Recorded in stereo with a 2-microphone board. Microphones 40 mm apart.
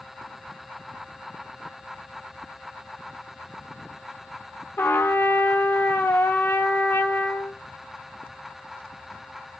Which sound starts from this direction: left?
A trumpet, at 4.8 s.